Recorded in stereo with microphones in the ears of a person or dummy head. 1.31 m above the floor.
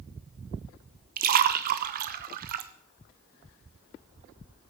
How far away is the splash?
About 0.8 m.